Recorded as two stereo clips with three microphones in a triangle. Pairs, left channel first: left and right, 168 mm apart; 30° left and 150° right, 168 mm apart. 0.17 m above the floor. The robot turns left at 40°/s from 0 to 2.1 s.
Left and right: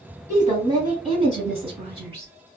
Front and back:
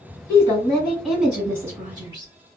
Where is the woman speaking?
30° right, 1.9 m; by 2.3 s 105° right, 1.9 m.